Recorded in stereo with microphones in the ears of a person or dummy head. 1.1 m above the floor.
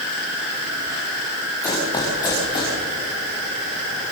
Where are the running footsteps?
20° left (ahead or behind), 8.5 m; by 2.8 s 30° left (ahead or behind), 8 m.